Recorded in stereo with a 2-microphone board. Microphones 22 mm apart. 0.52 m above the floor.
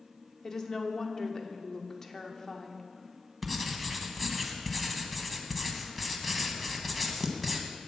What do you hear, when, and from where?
0.4 s a woman speaking: 25° left (ahead or behind), 0.9 m
3.4 s writing: 5° left (ahead or behind), 0.9 m